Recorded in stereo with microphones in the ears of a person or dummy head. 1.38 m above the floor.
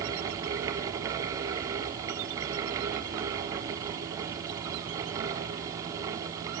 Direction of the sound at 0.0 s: 20° right (ahead or behind).